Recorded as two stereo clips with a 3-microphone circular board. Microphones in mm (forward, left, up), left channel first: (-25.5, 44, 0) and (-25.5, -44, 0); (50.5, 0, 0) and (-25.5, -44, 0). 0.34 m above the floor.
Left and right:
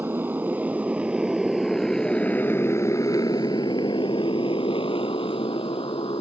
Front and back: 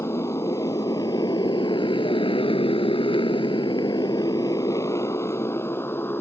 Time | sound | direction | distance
0.0 | a motorcycle | 25° right | ?